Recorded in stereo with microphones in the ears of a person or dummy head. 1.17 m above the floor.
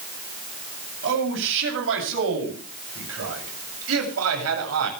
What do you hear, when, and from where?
1.0 s a man speaking: 70° right (ahead or behind), 8 m; by 4.9 s 85° right, 7.5 m